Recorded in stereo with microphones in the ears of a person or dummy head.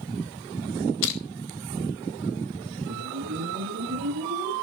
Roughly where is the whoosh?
Right.